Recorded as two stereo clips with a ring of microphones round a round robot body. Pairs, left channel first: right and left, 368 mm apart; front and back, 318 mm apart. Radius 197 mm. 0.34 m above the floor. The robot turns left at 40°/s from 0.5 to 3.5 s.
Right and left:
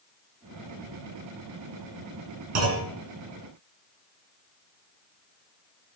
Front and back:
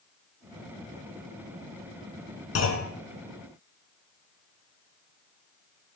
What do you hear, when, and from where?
2.5 s a clunk: 40° left, 3 m; by 2.9 s 25° left, 3 m